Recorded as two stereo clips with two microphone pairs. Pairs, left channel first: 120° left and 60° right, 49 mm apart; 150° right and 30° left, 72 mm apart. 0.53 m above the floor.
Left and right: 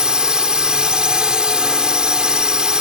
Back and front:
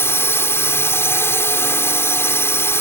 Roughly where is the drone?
Behind right.